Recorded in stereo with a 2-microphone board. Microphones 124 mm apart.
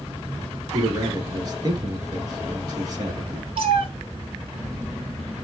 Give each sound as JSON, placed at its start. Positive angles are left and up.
{"t": 0.7, "sound": "a man speaking", "side_deg": -35, "distance_m": 1.8}
{"t": 3.6, "sound": "a cat meowing", "side_deg": -50, "distance_m": 1.1}